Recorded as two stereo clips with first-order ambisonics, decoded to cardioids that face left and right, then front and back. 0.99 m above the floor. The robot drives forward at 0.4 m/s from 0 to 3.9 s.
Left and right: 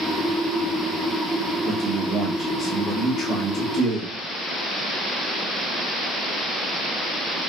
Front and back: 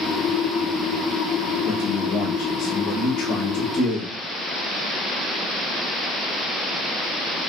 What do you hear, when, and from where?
1.6 s a man speaking: 25° left, 3 m; by 4.2 s 40° left, 2 m